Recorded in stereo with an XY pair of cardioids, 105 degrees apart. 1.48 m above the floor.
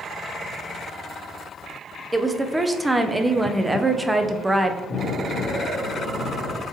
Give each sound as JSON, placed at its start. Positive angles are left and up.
{"t": 2.1, "sound": "a woman speaking", "azimuth_deg": -10, "distance_m": 0.6}
{"t": 4.9, "sound": "an explosion", "azimuth_deg": 50, "distance_m": 1.6}